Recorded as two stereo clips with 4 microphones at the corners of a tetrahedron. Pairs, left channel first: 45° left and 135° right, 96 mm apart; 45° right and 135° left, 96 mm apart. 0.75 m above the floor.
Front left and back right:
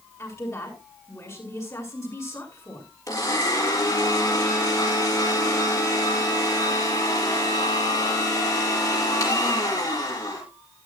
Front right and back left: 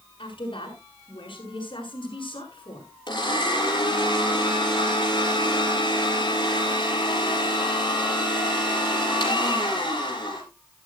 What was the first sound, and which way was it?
A woman speaking, 15° right.